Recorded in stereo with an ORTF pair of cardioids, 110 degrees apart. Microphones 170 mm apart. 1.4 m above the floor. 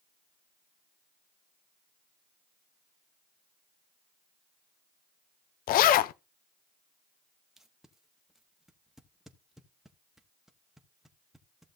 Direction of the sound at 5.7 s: 65° left.